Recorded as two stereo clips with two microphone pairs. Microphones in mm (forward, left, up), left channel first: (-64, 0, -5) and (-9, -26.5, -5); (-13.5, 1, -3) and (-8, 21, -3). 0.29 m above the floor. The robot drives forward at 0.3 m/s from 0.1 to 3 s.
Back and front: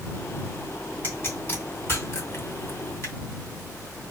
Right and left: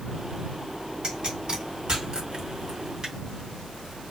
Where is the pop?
110° left, 2.5 m; by 3.1 s 125° left, 2.5 m.